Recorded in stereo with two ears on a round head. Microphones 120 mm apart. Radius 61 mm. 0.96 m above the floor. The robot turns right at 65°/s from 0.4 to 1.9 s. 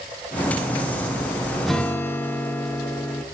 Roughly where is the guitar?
Centre.